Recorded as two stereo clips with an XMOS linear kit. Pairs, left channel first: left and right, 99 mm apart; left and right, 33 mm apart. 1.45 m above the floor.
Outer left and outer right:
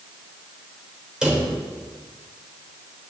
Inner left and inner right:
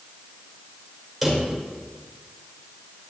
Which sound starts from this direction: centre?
A drawer, at 1.2 s.